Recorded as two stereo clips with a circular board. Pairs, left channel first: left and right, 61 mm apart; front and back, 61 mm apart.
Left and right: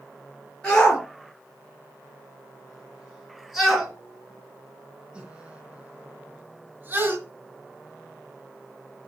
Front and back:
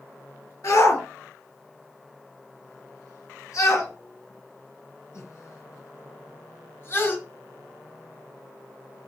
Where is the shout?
15° left, 4 m; by 7.2 s 45° right, 2.5 m.